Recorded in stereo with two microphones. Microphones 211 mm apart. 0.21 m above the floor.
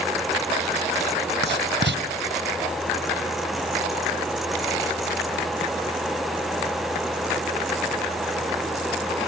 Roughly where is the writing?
Right.